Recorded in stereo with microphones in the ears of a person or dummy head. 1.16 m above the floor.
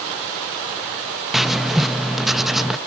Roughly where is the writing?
Centre.